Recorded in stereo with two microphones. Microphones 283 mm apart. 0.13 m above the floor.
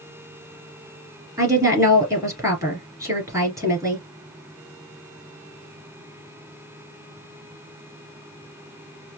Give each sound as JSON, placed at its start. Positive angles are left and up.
{"t": 1.4, "sound": "a woman speaking", "side_deg": -10, "distance_m": 2.5}